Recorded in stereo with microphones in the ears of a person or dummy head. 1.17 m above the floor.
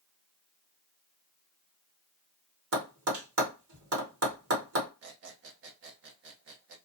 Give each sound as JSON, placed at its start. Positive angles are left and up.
{"t": 2.7, "sound": "tapping", "side_deg": -65, "distance_m": 1.1}
{"t": 5.0, "sound": "a squeak", "side_deg": -65, "distance_m": 0.7}